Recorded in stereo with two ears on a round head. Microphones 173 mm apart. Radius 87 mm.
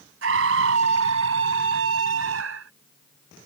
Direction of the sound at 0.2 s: 70° right (ahead or behind).